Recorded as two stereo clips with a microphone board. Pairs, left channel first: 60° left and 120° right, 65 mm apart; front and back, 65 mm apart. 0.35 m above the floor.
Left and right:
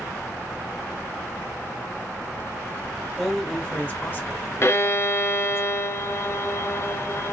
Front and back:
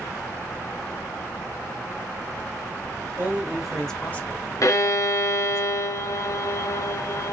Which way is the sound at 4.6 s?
20° left.